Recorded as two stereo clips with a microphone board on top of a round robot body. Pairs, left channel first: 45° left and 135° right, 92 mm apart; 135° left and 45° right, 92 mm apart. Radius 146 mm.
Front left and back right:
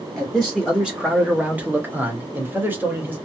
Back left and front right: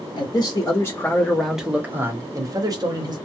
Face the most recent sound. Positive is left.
turn(degrees=-70)